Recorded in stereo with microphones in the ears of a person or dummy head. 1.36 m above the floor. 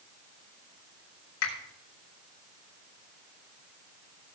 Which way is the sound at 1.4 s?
85° left.